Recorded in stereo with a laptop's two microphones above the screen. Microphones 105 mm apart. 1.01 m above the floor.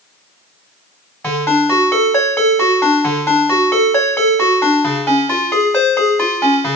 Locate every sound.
1.2 s a ringtone: 20° left (ahead or behind), 1.8 m